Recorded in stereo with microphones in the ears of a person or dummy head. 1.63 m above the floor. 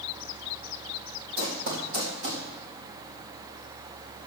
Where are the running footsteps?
60° right (ahead or behind), 3.5 m.